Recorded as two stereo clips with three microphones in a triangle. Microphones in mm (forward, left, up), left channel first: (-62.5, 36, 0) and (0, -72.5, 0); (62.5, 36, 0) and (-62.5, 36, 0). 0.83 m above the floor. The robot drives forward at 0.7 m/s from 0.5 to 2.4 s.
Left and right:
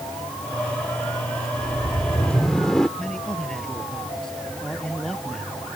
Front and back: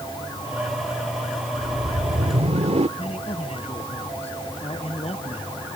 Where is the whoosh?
145° right; by 2.9 s 155° right.